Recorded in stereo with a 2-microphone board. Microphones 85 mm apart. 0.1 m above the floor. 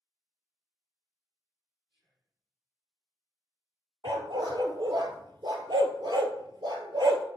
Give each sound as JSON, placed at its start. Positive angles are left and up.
{"t": 1.9, "sound": "whispering", "side_deg": -70, "distance_m": 4.0}
{"t": 4.0, "sound": "a dog barking", "side_deg": -55, "distance_m": 0.9}